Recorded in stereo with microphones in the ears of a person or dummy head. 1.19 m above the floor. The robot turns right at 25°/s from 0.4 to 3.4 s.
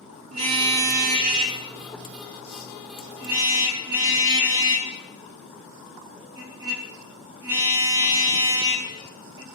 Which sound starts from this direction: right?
A car horn, at 0.3 s.